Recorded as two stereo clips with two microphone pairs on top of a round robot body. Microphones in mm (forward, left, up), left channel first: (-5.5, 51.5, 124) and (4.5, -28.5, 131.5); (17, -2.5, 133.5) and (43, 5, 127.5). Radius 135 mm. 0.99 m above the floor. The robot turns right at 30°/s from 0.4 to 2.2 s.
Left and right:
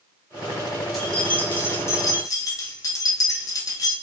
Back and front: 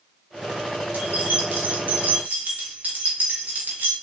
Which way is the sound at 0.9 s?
5° left.